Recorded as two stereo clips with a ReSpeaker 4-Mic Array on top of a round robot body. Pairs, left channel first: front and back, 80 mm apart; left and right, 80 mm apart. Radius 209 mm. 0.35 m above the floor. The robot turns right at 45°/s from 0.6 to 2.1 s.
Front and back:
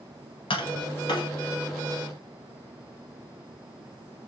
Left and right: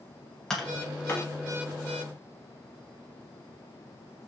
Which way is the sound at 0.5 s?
5° left.